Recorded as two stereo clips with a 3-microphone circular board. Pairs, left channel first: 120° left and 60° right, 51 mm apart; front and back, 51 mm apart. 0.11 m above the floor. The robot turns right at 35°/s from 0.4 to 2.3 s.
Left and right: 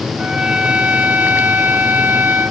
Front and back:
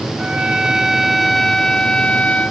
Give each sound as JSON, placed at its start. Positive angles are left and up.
{"t": 0.2, "sound": "a trumpet", "azimuth_deg": -120}